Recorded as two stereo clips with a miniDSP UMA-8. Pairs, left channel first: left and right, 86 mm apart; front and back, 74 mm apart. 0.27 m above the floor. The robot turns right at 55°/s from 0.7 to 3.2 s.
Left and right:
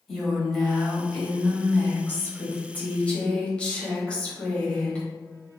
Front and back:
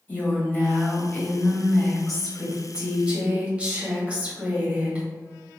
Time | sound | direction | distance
0.1 | a woman speaking | 10° left | 1.0 m